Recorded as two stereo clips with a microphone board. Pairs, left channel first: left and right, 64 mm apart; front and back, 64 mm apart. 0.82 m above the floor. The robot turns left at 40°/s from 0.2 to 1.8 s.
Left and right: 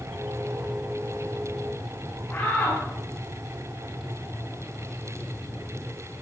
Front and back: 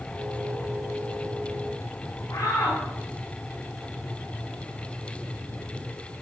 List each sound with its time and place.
2.3 s a shout: 40° left, 9 m